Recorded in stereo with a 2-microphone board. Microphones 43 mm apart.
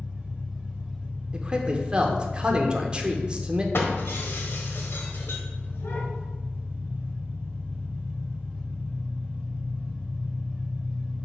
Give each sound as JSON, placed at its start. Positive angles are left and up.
{"t": 0.0, "sound": "an engine running", "side_deg": -35, "distance_m": 2.0}
{"t": 1.3, "sound": "a man speaking", "side_deg": -25, "distance_m": 0.8}
{"t": 3.7, "sound": "breaking glass", "side_deg": 65, "distance_m": 1.1}